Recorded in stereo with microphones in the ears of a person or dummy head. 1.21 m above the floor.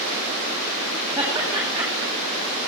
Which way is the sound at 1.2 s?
5° right (ahead or behind).